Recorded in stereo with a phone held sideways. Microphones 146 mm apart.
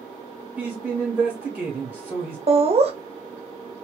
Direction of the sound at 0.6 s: Centre (ahead or behind).